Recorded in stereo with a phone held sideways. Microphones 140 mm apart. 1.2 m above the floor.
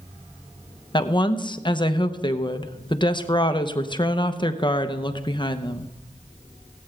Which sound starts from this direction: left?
A woman speaking, at 0.9 s.